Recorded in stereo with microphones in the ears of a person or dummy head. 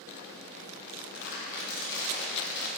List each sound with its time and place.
0.9 s crumpling: 55° left (ahead or behind), 1.0 m